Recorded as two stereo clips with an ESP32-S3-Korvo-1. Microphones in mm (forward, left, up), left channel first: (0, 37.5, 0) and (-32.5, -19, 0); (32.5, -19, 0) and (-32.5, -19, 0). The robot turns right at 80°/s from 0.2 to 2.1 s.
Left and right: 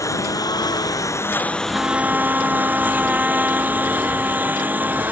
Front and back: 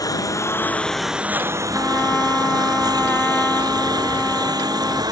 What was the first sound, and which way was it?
A lawn mower, 25° left.